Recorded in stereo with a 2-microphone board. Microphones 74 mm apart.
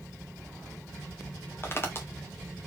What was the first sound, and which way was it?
Footsteps, 35° left (ahead or behind).